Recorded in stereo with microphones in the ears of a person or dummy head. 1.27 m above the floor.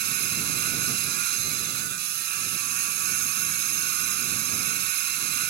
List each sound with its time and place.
0.0 s a machine running: 55° right (ahead or behind)